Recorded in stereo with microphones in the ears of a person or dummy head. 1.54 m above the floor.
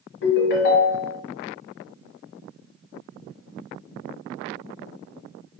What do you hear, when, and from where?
0.2 s a ringtone: 55° left (ahead or behind), 0.8 m